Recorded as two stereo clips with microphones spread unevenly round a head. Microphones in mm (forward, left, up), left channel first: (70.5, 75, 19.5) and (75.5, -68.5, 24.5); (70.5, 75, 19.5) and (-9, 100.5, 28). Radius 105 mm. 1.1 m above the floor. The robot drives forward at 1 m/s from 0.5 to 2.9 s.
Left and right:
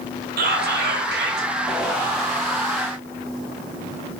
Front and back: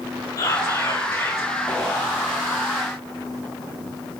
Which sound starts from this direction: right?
Whispering, at 0.4 s.